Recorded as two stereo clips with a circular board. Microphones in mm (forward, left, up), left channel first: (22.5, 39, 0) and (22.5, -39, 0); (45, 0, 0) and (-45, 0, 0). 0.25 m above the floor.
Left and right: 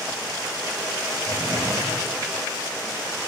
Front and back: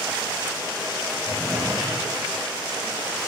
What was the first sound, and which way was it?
A drawer, 120° left.